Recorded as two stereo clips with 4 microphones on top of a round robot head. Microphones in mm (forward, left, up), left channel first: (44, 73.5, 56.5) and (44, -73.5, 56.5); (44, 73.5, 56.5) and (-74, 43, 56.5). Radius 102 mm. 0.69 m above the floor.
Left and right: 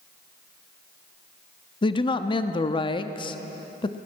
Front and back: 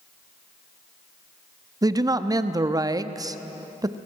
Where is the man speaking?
140° left, 0.9 m.